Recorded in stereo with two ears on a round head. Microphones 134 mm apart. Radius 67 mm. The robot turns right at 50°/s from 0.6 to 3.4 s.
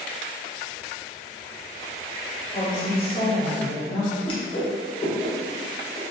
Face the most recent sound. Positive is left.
turn(degrees=35)  # may be behind; listen again after turning